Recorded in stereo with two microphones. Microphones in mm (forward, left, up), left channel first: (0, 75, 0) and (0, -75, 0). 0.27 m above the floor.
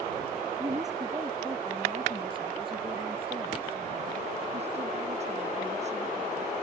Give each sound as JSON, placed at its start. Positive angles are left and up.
{"t": 0.6, "sound": "a woman speaking", "side_deg": -20}